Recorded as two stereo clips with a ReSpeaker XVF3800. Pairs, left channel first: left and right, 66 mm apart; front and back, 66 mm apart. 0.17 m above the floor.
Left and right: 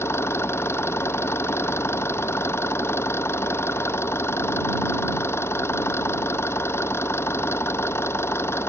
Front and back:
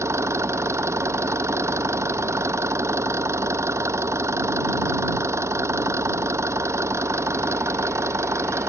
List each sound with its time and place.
0.0 s an engine running: 140° left